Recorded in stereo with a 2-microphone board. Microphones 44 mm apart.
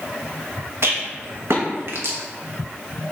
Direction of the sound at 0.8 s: 65° right (ahead or behind).